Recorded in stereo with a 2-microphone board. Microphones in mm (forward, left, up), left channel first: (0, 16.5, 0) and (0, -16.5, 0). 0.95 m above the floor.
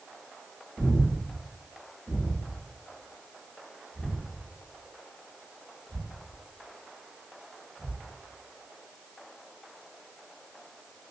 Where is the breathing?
40° right (ahead or behind), 0.9 m.